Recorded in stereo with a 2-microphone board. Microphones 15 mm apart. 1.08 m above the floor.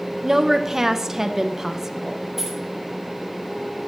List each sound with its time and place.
0.2 s a woman speaking: 25° right (ahead or behind), 0.6 m
2.4 s keys jangling: 15° right (ahead or behind), 2 m